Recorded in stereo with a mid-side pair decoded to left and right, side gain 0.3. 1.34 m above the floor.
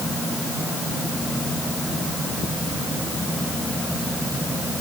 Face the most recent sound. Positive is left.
No sound to turn to.